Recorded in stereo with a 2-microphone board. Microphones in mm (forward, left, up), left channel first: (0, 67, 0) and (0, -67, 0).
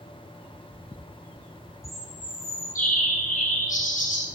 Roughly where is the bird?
Left.